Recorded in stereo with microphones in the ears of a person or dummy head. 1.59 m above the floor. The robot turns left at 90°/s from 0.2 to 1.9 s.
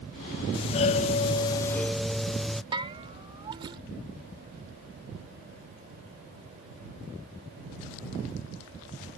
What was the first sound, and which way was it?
A doorbell, 130° left.